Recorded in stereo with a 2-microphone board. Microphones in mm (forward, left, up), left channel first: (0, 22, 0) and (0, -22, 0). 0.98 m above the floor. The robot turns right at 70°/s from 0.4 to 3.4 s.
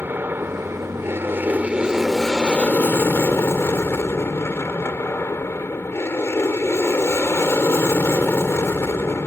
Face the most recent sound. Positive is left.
turn(degrees=90)